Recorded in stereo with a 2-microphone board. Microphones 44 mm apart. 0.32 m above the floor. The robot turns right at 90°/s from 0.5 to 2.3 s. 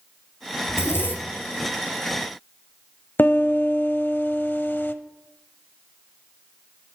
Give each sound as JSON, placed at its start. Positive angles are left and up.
{"t": 0.7, "sound": "a zipper", "azimuth_deg": 85, "distance_m": 1.5}
{"t": 3.2, "sound": "a piano", "side_deg": 55, "distance_m": 0.7}